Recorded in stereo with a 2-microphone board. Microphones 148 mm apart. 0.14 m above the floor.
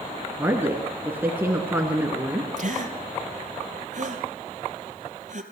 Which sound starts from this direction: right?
A gasp, at 2.6 s.